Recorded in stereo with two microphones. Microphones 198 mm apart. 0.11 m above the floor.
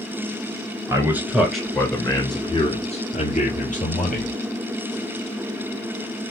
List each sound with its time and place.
0.9 s a man speaking: 15° right (ahead or behind), 1.2 m; by 4.3 s 50° left (ahead or behind), 1.8 m